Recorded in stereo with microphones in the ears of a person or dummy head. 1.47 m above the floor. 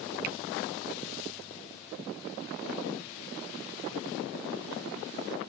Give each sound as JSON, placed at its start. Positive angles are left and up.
{"t": 0.2, "sound": "a finger snap", "side_deg": -50}